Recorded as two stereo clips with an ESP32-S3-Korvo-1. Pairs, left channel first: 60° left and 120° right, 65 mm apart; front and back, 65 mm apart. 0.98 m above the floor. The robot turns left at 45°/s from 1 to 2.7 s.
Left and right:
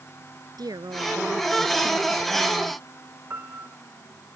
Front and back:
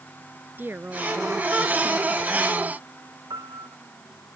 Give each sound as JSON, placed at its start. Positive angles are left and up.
{"t": 0.6, "sound": "a woman speaking", "azimuth_deg": -120}
{"t": 3.3, "sound": "a piano", "azimuth_deg": -170}